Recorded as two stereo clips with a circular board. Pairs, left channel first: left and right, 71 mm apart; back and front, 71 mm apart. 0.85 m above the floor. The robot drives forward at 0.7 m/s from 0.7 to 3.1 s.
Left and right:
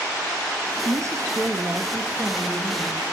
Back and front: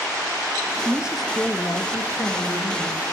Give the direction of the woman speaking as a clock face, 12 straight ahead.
2 o'clock.